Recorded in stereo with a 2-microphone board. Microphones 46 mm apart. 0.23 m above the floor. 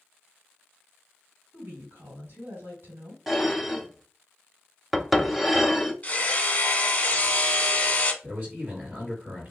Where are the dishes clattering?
Centre (ahead or behind), 0.7 m.